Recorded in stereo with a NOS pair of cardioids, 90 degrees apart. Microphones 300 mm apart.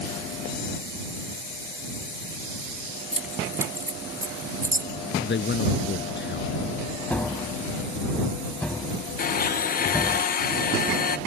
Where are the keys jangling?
5° right; by 4.9 s 10° right.